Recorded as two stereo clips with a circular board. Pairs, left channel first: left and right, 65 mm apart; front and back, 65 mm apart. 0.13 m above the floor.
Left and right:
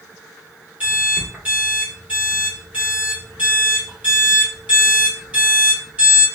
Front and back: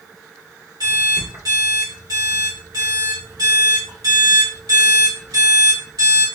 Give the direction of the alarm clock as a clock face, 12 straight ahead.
5 o'clock.